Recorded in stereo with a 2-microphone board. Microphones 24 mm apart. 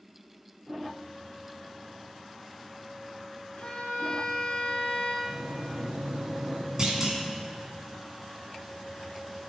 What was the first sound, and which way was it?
A violin, 45° left (ahead or behind).